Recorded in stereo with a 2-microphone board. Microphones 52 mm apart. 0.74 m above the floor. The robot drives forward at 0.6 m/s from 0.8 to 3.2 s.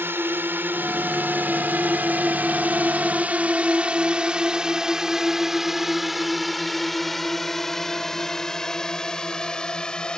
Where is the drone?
50° right (ahead or behind); by 10.2 s 15° left (ahead or behind).